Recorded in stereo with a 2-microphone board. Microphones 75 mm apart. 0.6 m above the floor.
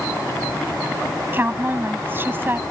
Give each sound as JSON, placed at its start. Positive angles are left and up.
{"t": 1.3, "sound": "a woman speaking", "side_deg": -30}